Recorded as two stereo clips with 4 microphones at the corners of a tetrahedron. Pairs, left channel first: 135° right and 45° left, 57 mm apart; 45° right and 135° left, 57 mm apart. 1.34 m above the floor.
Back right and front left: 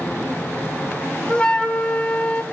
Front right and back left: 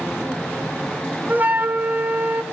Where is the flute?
175° left, 0.6 m.